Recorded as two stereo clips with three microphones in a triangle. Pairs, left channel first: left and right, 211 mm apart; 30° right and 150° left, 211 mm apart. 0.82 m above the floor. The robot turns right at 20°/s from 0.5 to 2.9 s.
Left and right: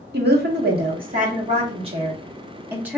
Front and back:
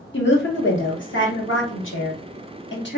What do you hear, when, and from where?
0.1 s a woman speaking: 55° right, 1.4 m; by 3.0 s 10° right, 1.4 m